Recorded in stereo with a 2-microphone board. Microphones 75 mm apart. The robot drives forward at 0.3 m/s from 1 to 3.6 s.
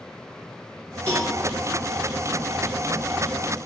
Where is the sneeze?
No sneeze in this recording.